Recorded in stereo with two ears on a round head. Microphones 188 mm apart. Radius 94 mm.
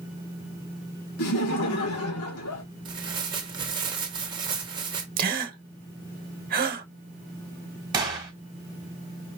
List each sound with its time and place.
1.2 s laughter: 80° left, 2 m
2.9 s tearing paper: 20° right (ahead or behind), 1.4 m
5.2 s a gasp: 45° right (ahead or behind), 0.9 m
7.9 s a gunshot: 20° right (ahead or behind), 2.0 m